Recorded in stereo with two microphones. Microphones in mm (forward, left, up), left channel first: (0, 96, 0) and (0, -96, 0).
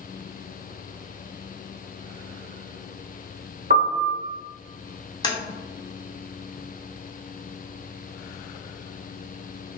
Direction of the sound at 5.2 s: 20° left (ahead or behind).